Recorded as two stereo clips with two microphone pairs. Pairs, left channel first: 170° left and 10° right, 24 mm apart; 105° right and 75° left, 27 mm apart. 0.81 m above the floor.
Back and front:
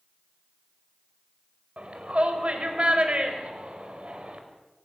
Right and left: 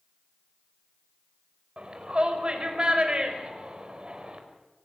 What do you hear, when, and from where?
1.8 s a shout: 30° left, 4.5 m